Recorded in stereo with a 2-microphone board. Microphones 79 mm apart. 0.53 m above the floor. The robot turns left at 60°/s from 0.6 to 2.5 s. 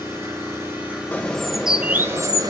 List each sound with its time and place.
0.0 s an engine running: 145° right, 9 m; by 2.5 s 100° left, 9 m
1.1 s a bird: 25° left, 0.9 m; by 2.5 s 60° right, 0.9 m